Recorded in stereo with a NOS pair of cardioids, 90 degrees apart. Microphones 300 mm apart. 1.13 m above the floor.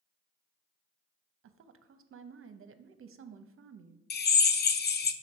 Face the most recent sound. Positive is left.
turn(degrees=35)